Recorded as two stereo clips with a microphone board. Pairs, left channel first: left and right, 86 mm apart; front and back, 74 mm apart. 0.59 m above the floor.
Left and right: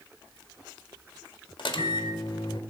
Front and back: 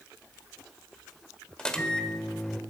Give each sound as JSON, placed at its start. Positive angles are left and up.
{"t": 1.6, "sound": "a microwave", "azimuth_deg": 80, "distance_m": 1.5}